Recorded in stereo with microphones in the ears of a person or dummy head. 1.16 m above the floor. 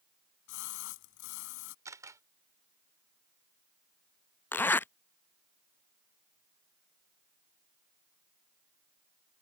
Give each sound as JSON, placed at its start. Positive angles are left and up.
{"t": 0.5, "sound": "a splash", "side_deg": 65}
{"t": 1.9, "sound": "a camera shutter", "side_deg": -15}
{"t": 4.5, "sound": "a zipper", "side_deg": 10}